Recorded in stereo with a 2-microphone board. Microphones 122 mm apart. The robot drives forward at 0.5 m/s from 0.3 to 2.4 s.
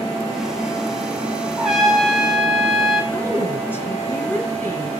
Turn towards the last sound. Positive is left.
turn(degrees=20)  # may be behind; listen again after turning